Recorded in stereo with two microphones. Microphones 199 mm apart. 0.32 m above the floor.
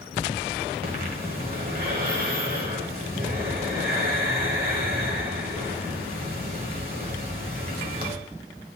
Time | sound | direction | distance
0.8 | breathing | 45° right (ahead or behind) | 1.4 m